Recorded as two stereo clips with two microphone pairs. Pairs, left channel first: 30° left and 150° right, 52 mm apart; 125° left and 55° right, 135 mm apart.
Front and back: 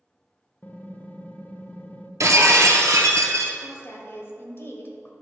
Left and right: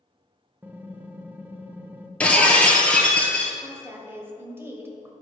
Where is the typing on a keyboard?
10° left, 0.6 m.